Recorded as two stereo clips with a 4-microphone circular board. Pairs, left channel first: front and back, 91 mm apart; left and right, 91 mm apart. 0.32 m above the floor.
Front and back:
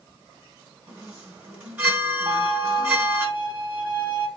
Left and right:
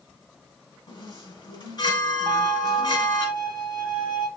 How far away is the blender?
No blender in this recording.